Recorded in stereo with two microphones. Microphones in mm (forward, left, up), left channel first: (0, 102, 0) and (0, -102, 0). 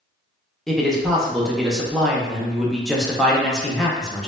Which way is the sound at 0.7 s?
Centre (ahead or behind).